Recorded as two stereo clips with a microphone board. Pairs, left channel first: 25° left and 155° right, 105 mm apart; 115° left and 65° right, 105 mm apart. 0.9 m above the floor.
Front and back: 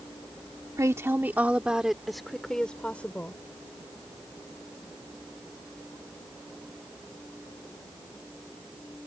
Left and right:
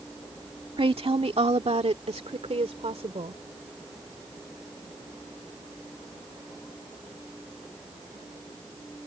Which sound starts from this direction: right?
A woman speaking, at 0.8 s.